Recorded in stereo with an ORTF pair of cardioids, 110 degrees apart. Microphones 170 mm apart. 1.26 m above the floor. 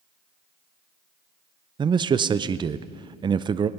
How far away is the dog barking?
No dog barking in this recording.